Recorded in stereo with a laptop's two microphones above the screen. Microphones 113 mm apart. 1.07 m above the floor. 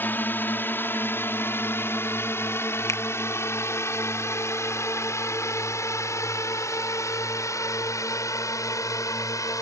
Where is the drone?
20° left (ahead or behind); by 9.6 s 30° left (ahead or behind).